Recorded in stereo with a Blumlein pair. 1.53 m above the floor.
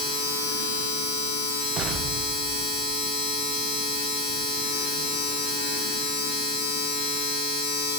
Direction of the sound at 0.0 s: 35° left.